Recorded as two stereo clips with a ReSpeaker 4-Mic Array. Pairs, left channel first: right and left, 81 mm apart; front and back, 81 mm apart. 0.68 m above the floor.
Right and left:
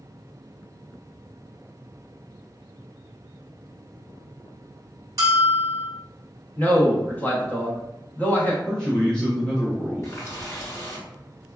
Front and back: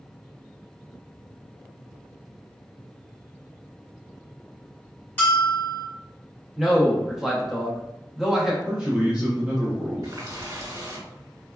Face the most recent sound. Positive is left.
turn(degrees=-145)